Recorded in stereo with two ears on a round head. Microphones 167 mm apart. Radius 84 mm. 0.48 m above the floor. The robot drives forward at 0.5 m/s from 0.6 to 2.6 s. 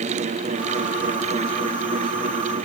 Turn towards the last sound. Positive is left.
No sound to turn to.